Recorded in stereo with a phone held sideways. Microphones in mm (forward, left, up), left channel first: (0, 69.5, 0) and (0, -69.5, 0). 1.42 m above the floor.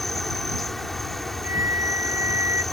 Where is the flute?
20° right (ahead or behind).